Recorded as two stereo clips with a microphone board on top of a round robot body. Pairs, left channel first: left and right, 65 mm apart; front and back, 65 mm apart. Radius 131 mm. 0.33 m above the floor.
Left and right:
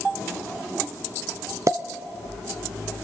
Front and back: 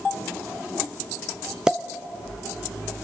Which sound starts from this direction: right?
A pop, at 1.7 s.